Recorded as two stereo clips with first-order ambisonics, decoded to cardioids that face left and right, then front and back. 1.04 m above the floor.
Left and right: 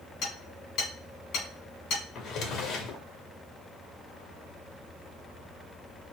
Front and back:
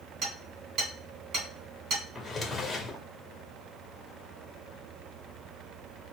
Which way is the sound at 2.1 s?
70° left.